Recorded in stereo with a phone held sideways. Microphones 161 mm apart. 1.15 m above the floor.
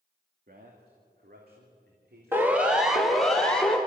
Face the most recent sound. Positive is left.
turn(degrees=5)  # may be behind; listen again after turning